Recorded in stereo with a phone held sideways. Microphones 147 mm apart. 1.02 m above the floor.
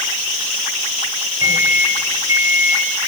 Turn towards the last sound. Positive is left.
turn(degrees=-20)  # may be behind; listen again after turning